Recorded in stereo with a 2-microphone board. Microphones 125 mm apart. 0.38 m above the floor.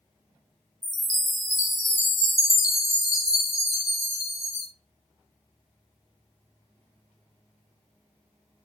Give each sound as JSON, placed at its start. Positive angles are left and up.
{"t": 0.8, "sound": "a chime", "side_deg": 25, "distance_m": 2.0}